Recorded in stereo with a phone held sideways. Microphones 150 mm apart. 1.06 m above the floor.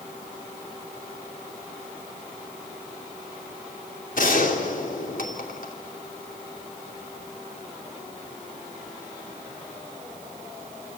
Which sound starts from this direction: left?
A gunshot, at 4.2 s.